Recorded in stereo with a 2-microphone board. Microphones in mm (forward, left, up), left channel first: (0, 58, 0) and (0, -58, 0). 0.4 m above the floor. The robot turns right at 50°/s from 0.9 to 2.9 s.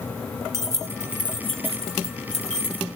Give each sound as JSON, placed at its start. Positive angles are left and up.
{"t": 0.5, "sound": "keys jangling", "side_deg": -25, "distance_m": 2.0}